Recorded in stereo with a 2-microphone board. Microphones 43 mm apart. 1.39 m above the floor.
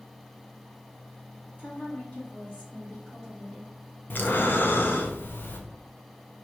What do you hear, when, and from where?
1.6 s a woman speaking: 40° left (ahead or behind), 2.5 m; by 3.7 s centre (ahead or behind), 1.8 m
4.1 s breathing: 55° left (ahead or behind), 0.7 m